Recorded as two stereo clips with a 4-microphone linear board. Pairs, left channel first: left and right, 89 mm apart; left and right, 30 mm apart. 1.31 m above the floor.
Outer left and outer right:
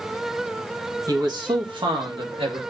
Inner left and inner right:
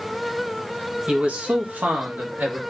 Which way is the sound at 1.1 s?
40° right (ahead or behind).